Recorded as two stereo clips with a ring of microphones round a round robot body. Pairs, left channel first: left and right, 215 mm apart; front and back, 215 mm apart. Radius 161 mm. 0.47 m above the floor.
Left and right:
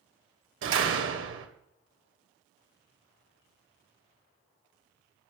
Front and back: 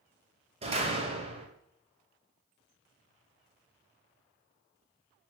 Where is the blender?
I don't hear a blender.